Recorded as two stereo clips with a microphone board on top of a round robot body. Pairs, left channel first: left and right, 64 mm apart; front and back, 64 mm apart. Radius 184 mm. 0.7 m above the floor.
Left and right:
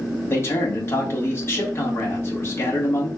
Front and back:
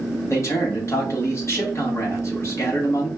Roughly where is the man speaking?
Ahead left.